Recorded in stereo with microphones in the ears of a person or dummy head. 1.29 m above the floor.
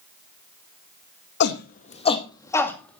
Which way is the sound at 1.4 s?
60° left (ahead or behind).